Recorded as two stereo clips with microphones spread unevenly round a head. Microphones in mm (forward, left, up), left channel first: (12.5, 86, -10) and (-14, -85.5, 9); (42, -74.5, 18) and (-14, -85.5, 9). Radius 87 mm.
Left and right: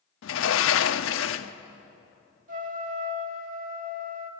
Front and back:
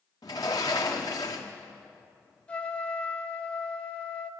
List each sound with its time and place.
0.2 s a sliding door: 65° left, 0.8 m
2.5 s a trumpet: 55° right, 1.8 m